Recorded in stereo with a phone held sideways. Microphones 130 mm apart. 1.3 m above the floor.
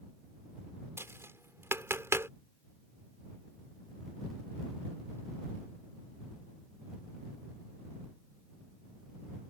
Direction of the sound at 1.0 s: 20° right (ahead or behind).